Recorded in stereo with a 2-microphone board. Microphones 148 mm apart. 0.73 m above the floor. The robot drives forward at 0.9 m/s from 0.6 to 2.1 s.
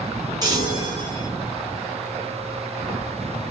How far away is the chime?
About 4 m.